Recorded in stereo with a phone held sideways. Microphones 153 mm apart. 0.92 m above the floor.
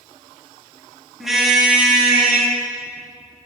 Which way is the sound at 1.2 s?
Centre (ahead or behind).